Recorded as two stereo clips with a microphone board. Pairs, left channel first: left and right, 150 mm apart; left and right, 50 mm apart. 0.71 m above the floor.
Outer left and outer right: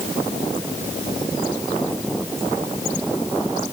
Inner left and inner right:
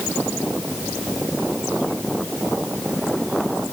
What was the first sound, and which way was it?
Only background noise.